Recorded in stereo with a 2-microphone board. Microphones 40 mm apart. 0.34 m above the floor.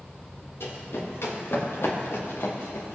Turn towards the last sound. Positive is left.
turn(degrees=80)